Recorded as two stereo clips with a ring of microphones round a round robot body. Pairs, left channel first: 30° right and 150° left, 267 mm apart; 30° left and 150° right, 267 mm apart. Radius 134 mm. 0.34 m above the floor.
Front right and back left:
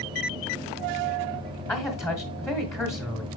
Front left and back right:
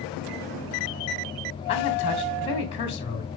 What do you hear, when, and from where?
1.7 s a man speaking: 35° left, 1.3 m